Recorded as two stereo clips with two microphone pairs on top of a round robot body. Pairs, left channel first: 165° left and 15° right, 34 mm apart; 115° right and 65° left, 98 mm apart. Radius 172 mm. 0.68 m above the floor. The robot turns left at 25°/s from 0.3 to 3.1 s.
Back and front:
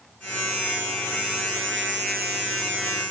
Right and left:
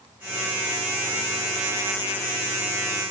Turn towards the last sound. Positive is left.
No sound to turn to.